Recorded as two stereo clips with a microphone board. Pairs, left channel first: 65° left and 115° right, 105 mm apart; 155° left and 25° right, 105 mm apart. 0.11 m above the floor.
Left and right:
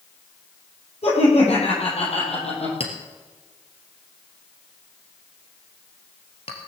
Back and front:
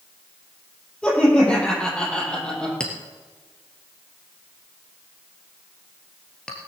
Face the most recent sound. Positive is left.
turn(degrees=75)